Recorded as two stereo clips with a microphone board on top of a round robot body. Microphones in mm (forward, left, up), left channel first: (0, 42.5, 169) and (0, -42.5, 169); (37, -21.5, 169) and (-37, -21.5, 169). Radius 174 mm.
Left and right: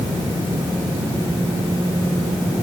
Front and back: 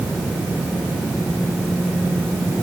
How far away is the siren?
I don't hear a siren.